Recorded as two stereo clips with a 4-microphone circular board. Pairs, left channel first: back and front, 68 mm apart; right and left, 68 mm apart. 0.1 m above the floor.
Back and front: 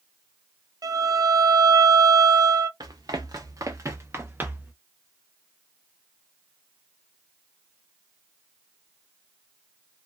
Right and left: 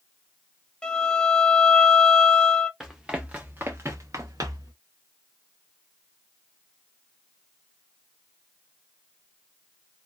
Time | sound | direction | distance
0.8 | a violin | 10° right | 0.5 m
2.8 | running footsteps | 5° left | 1.0 m